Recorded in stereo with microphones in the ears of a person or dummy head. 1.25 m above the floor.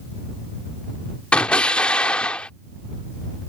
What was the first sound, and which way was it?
An explosion, 10° left (ahead or behind).